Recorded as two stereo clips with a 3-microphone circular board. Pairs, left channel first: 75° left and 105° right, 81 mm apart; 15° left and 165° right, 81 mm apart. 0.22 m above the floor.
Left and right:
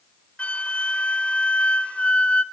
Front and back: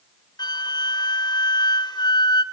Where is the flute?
Straight ahead, 0.8 m.